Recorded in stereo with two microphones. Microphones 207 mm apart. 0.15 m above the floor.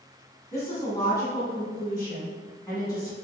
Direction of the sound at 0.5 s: 15° left (ahead or behind).